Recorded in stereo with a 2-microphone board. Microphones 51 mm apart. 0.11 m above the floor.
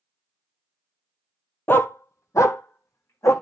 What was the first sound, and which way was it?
A dog barking, 45° left (ahead or behind).